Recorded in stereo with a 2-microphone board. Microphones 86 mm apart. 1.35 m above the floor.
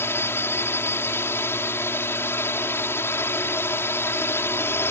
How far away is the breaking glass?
No breaking glass in this recording.